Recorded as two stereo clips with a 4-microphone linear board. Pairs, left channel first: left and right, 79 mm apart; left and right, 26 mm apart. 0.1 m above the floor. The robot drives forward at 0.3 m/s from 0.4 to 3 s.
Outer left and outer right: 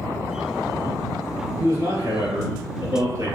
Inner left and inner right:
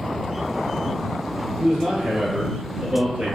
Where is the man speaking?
45° right (ahead or behind), 1.5 m.